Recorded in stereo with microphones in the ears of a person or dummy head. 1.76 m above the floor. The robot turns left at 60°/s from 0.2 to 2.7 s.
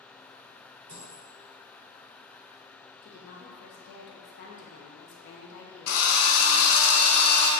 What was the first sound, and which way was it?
A dropped coin, 30° right (ahead or behind).